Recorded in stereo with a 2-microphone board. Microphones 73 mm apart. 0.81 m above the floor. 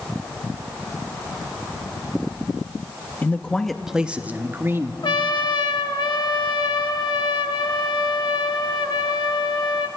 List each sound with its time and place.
3.2 s a man speaking: 25° left (ahead or behind), 0.7 m; by 4.9 s 35° right (ahead or behind), 1.2 m
5.0 s a trumpet: 75° left (ahead or behind), 1.2 m